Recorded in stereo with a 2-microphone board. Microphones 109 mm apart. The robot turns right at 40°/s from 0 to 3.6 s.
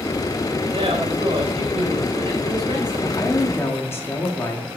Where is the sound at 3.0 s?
35° left (ahead or behind), 1.6 m; by 4.8 s 25° left (ahead or behind), 1.6 m.